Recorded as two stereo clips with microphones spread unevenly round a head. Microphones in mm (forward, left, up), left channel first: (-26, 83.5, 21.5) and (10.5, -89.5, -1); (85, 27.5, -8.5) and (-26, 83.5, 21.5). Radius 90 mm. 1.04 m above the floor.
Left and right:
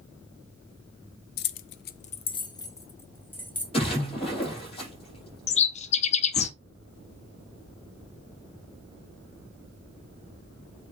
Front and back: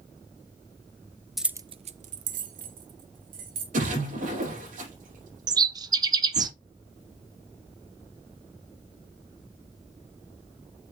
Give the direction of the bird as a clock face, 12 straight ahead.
8 o'clock.